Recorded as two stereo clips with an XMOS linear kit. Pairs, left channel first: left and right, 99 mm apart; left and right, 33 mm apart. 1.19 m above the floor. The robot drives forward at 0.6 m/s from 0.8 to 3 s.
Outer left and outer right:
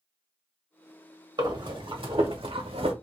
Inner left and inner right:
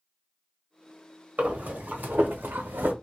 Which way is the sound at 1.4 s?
50° right (ahead or behind).